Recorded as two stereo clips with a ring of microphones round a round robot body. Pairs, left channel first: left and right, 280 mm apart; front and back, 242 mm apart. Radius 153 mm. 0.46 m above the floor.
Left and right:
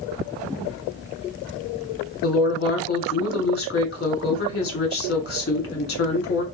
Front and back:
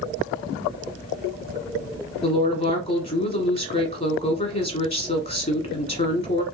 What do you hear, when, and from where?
2.2 s a woman speaking: 50° left, 1.3 m